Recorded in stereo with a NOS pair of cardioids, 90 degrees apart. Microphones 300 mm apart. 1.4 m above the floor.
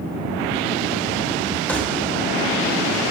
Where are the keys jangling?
5° left, 3 m.